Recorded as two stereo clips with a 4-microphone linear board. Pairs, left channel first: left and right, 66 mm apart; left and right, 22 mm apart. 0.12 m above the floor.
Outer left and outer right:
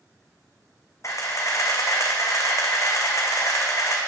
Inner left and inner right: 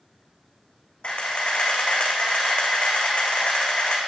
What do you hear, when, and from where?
1.0 s a camera shutter: 50° left (ahead or behind), 1.8 m